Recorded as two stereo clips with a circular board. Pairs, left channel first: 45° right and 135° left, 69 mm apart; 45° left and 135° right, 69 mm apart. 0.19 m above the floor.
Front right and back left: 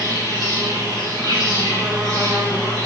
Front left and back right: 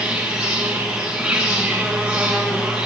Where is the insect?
65° right, 4 m.